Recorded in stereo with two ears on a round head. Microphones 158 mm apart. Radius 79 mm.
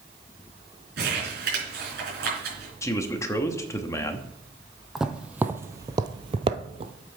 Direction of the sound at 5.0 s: 5° right (ahead or behind).